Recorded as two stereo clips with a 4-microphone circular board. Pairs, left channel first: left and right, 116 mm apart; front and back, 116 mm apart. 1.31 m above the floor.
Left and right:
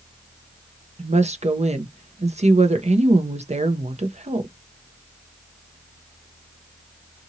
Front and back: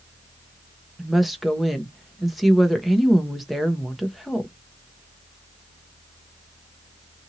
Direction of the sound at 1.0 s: 90° right.